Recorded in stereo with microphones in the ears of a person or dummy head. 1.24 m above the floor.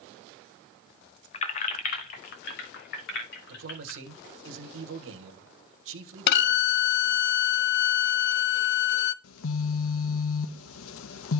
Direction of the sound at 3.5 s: 65° right (ahead or behind).